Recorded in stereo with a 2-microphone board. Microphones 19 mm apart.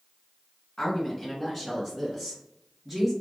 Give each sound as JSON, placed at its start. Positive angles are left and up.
{"t": 0.8, "sound": "a woman speaking", "side_deg": 25, "distance_m": 1.7}